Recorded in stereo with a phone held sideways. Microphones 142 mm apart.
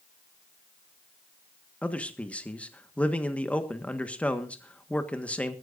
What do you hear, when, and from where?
1.8 s a man speaking: 10° left (ahead or behind), 1.4 m